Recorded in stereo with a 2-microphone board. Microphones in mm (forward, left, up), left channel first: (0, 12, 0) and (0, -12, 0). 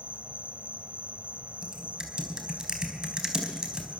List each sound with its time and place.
0.0 s an insect: 65° right (ahead or behind), 1.2 m
1.6 s typing on a keyboard: 35° right (ahead or behind), 4 m